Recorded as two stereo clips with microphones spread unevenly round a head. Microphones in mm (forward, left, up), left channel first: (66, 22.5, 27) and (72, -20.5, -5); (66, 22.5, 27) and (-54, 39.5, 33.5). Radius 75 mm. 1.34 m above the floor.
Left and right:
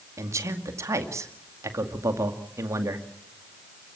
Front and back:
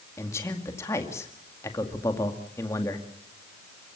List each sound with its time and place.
0.2 s a man speaking: 80° right, 2 m